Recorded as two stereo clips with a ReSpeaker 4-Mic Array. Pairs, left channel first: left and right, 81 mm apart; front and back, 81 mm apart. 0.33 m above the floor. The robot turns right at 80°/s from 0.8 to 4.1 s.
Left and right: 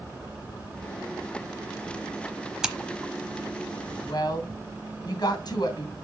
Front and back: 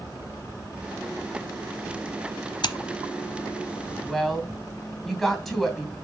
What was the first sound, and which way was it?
Scissors, 10° right.